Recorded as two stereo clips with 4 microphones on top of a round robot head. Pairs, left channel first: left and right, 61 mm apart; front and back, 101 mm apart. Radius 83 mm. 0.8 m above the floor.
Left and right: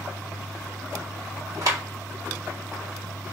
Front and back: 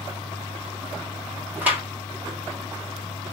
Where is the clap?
105° right, 1.8 m.